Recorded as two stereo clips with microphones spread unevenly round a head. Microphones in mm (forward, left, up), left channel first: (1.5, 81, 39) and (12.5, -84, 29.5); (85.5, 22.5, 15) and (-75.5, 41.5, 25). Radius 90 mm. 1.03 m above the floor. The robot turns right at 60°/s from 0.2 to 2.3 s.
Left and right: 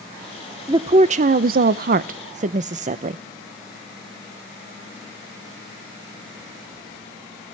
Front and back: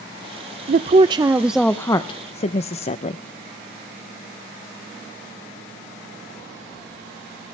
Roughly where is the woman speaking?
Behind right.